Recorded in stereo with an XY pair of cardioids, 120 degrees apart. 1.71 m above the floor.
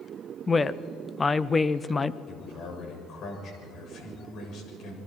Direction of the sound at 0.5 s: 25° left.